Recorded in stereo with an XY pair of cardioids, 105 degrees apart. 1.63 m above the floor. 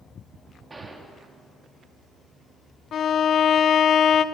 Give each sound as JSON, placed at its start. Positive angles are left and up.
{"t": 0.7, "sound": "a gunshot", "azimuth_deg": -25, "distance_m": 3.5}
{"t": 2.9, "sound": "a violin", "azimuth_deg": 60, "distance_m": 1.0}